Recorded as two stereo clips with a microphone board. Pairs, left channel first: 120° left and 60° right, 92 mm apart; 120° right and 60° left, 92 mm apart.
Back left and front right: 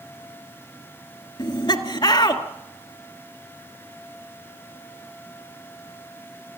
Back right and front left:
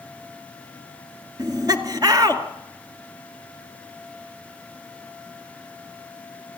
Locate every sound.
1.4 s laughter: 100° left, 2 m